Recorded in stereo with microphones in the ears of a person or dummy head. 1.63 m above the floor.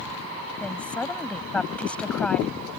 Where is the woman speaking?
10° left (ahead or behind).